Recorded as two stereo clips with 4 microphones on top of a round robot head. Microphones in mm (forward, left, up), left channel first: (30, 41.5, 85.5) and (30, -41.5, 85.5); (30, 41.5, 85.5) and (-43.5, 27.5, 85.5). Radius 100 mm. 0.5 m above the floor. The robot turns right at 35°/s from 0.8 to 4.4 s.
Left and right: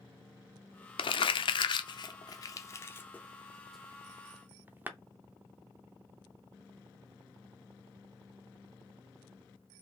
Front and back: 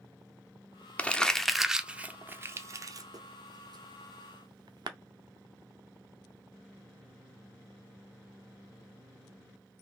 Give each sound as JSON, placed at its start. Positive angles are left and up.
{"t": 1.0, "sound": "crumpling", "azimuth_deg": 85, "distance_m": 0.5}